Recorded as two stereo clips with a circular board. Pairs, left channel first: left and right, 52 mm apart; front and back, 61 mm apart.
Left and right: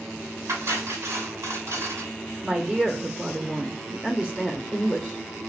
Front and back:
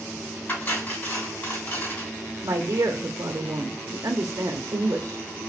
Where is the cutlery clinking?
50° right, 2.5 m.